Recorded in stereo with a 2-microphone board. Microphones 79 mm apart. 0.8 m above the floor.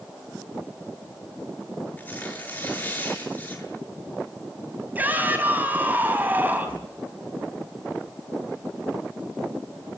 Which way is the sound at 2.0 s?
25° left (ahead or behind).